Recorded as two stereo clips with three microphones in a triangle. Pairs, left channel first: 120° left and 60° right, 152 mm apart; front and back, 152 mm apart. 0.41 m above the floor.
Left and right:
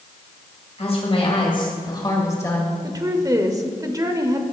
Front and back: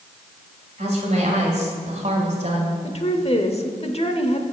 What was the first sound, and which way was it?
A woman speaking, 155° left.